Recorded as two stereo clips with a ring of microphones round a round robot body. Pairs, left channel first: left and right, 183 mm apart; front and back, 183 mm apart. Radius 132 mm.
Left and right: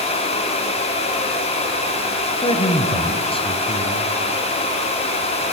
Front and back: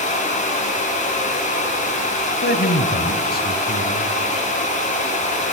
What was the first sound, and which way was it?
A man speaking, 30° left.